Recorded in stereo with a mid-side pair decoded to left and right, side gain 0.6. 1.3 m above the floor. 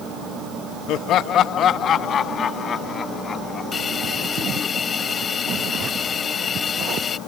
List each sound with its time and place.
0.9 s laughter: 65° left; by 4.7 s 35° left
3.7 s a hiss: 35° left